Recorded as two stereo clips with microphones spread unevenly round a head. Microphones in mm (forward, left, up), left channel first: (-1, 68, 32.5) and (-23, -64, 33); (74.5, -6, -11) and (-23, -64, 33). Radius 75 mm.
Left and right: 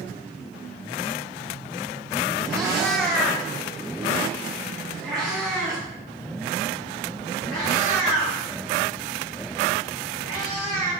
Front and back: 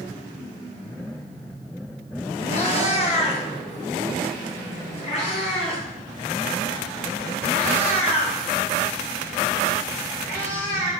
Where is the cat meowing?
10° right, 1.2 m.